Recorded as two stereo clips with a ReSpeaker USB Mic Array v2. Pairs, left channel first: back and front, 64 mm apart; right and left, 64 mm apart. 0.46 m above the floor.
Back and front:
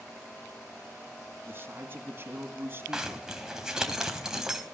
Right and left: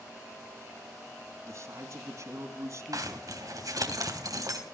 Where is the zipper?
80° left, 3 m.